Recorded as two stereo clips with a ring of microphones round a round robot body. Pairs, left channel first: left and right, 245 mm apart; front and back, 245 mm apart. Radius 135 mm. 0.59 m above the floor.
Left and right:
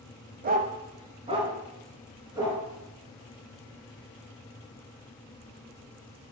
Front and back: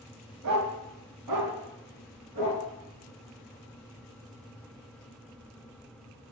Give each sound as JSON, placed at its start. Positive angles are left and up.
{"t": 0.4, "sound": "a dog barking", "azimuth_deg": -145, "distance_m": 0.8}